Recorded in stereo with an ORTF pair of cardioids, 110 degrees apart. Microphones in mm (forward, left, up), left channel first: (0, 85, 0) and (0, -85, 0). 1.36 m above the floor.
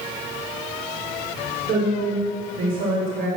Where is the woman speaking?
65° right, 4 m; by 3.3 s 60° right, 5.5 m.